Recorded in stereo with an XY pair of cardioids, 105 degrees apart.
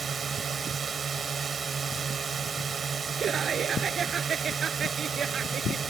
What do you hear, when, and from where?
0.0 s a drone: 40° right
3.2 s laughter: 50° right